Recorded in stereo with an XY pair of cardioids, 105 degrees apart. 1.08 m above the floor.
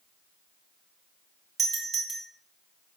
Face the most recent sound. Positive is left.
turn(degrees=-45)